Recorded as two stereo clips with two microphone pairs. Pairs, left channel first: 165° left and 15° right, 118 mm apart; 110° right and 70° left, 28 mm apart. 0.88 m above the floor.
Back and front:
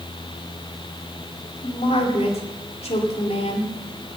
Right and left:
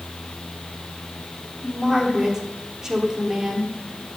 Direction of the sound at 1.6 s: 140° left.